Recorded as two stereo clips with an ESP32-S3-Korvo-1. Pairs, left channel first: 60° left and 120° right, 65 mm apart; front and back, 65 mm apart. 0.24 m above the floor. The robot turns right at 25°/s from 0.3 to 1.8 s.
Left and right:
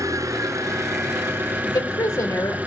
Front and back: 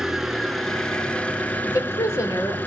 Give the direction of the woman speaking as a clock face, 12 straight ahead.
11 o'clock.